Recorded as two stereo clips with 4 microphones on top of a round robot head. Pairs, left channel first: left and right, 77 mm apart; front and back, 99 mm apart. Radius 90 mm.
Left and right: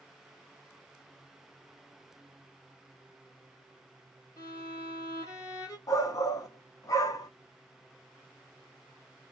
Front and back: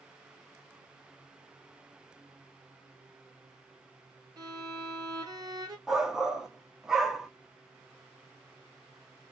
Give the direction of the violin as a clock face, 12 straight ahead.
8 o'clock.